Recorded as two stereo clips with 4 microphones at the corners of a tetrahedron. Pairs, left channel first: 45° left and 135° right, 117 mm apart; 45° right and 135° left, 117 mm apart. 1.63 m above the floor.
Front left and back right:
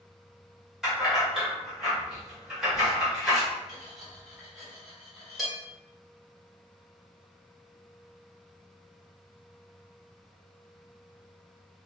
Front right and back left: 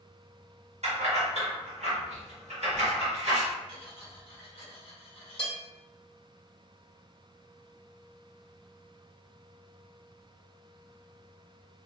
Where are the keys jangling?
140° left, 1.7 m.